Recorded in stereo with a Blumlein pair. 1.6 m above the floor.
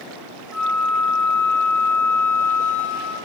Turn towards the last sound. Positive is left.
turn(degrees=15)